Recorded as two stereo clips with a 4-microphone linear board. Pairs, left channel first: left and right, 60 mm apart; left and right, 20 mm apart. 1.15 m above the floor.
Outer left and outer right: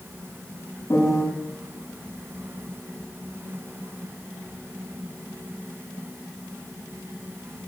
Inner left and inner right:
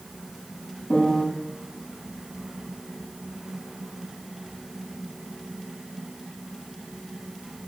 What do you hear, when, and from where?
0.9 s a piano: 55° left (ahead or behind), 7.5 m